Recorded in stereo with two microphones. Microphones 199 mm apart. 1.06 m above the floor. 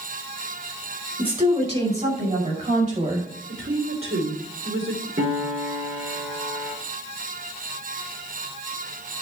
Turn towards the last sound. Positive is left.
turn(degrees=-70)  # may be behind; listen again after turning